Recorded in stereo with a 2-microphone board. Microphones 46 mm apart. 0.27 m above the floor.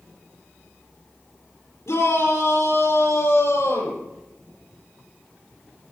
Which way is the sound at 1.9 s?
80° left.